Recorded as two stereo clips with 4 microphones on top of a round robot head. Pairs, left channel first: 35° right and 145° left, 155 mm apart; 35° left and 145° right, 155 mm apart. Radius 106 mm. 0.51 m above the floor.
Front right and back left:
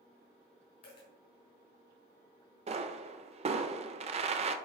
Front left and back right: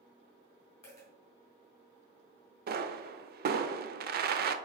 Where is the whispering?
I don't hear whispering.